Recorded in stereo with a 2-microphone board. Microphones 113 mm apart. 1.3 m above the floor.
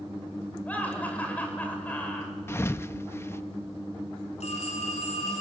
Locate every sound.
0.7 s laughter: 15° left (ahead or behind), 6.5 m
2.5 s a thud: 20° left (ahead or behind), 0.6 m
4.4 s a phone ringing: 75° left (ahead or behind), 8.5 m